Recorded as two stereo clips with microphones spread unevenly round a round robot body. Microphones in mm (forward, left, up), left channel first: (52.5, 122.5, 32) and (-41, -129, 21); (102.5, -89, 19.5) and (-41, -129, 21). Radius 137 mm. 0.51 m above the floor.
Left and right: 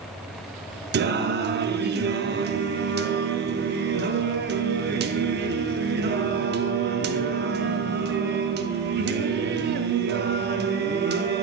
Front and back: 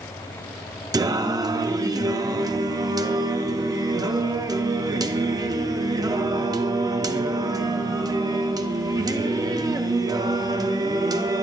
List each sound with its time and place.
0.9 s singing: 110° right, 0.5 m